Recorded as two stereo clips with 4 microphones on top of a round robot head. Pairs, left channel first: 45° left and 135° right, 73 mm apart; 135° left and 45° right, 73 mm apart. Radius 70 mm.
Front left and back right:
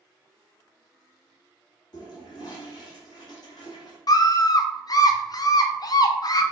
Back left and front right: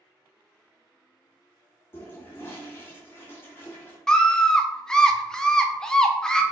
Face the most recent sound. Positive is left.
turn(degrees=55)